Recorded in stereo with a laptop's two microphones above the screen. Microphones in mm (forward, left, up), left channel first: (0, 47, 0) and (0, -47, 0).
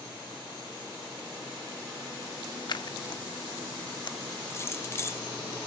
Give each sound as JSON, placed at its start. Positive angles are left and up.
{"t": 2.7, "sound": "scissors", "side_deg": 55, "distance_m": 0.6}
{"t": 4.5, "sound": "keys jangling", "side_deg": 30, "distance_m": 0.5}